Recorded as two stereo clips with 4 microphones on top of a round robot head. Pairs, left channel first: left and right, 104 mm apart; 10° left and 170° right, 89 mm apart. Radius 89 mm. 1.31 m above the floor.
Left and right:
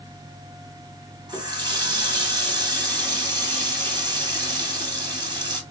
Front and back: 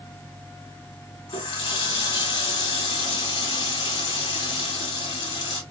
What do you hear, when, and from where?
1.3 s a running tap: 45° right, 2 m